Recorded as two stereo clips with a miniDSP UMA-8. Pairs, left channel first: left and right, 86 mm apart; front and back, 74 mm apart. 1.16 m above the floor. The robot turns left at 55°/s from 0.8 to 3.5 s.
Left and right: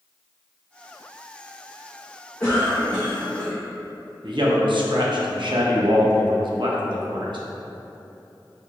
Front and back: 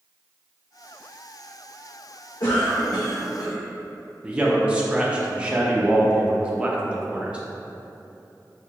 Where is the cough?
15° left, 0.6 m; by 3.6 s 45° right, 0.6 m.